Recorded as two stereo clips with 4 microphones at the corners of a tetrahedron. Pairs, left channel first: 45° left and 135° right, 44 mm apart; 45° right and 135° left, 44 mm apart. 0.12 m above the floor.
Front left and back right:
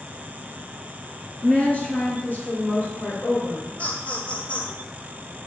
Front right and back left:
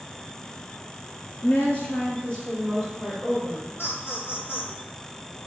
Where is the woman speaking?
10° right, 3 m; by 3.7 s 45° left, 4 m.